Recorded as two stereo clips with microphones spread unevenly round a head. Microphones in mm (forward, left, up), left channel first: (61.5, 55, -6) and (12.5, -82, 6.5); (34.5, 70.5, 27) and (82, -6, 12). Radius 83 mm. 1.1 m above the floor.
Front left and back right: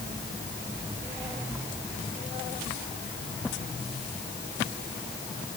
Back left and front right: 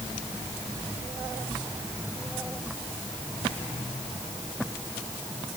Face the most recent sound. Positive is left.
No sound to turn to.